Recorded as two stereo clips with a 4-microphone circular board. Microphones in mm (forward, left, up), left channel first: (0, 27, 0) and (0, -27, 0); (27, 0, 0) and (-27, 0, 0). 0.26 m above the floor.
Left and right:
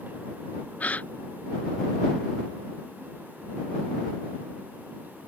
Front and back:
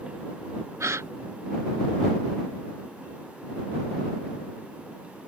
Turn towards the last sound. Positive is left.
turn(degrees=155)